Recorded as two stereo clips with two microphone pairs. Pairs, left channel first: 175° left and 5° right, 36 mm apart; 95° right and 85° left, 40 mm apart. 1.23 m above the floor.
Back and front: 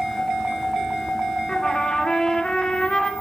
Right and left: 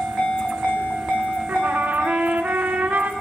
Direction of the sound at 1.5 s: 110° left.